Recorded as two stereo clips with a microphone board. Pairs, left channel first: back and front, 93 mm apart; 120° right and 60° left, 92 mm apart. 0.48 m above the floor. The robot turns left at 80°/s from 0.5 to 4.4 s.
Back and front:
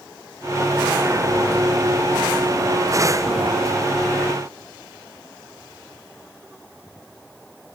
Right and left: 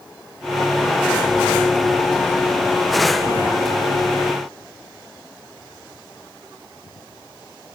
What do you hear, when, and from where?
Only background noise.